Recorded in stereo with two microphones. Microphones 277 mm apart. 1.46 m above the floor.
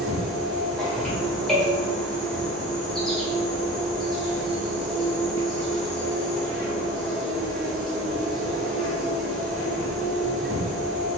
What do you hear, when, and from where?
0.0 s an insect: centre (ahead or behind), 1.8 m